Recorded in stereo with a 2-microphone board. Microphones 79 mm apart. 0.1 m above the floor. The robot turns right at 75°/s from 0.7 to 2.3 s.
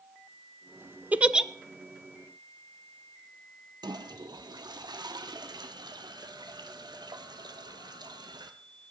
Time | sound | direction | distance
1.1 | a giggle | 20° right (ahead or behind) | 0.6 m
3.8 | a toilet flushing | 65° right (ahead or behind) | 1.4 m